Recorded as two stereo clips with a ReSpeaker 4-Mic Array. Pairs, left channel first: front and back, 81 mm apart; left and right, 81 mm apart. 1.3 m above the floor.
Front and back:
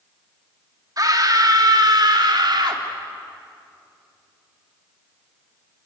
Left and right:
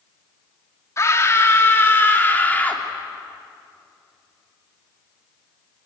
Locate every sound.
1.0 s a scream: 140° left, 3 m; by 2.8 s 155° left, 3.5 m